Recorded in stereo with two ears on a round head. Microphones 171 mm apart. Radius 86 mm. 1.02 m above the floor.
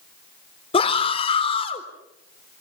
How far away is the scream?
About 3.5 m.